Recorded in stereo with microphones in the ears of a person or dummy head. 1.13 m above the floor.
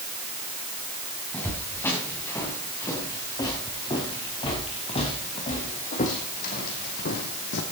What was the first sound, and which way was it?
Footsteps, 10° left (ahead or behind).